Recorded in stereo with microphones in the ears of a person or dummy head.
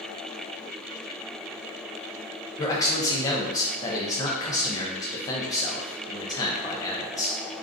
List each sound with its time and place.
2.6 s a man speaking: 20° left (ahead or behind), 0.5 m